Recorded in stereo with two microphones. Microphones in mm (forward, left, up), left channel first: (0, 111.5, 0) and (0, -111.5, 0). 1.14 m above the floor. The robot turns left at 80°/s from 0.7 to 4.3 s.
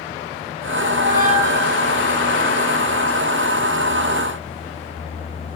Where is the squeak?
105° right, 0.9 m; by 2.0 s 165° left, 0.9 m.